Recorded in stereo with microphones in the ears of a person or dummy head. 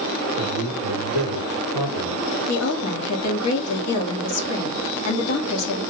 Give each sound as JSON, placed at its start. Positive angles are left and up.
{"t": 0.3, "sound": "a man speaking", "side_deg": 80, "distance_m": 2.5}
{"t": 2.5, "sound": "a woman speaking", "side_deg": 85, "distance_m": 1.4}